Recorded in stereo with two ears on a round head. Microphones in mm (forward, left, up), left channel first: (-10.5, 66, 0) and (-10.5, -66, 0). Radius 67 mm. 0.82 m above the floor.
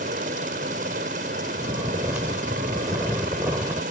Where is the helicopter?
55° right (ahead or behind).